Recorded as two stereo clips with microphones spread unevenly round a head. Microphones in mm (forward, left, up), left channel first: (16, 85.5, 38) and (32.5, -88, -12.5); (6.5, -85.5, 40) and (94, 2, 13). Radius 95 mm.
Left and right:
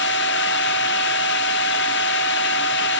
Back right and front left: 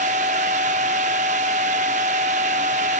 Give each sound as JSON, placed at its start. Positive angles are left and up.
{"t": 0.0, "sound": "a machine running", "azimuth_deg": 105, "distance_m": 0.8}